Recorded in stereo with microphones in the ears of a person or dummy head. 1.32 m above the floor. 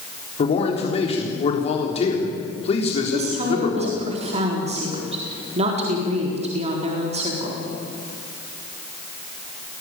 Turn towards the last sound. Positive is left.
turn(degrees=-35)  # may be behind; listen again after turning